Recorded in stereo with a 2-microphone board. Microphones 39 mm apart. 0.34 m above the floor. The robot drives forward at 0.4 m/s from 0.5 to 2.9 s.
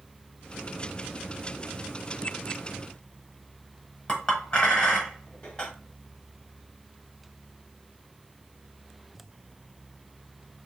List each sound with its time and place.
4.1 s a clink: 25° left (ahead or behind), 1.0 m